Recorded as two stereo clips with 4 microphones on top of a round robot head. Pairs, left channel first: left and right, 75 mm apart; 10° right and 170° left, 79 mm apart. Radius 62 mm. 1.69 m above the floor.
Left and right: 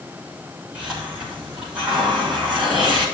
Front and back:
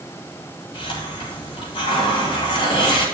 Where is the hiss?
10° right, 5.5 m.